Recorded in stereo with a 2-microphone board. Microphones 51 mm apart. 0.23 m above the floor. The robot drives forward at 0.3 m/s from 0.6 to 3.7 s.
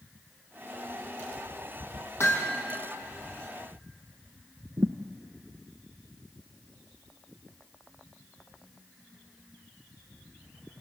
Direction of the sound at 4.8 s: 65° right (ahead or behind).